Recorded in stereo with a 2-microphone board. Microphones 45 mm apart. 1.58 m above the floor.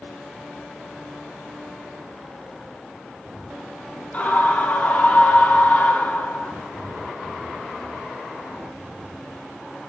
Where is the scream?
30° left (ahead or behind), 4 m.